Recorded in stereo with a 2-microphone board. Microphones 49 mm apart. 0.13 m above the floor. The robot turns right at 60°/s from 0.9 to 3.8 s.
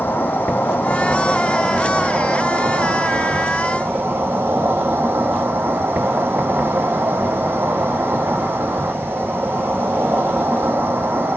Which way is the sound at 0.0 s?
140° left.